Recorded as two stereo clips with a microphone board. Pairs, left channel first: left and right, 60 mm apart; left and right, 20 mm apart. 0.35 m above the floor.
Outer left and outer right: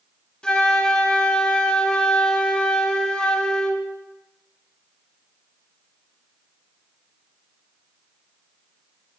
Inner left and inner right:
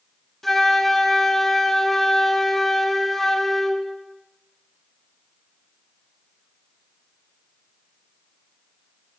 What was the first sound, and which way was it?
A flute, 15° left (ahead or behind).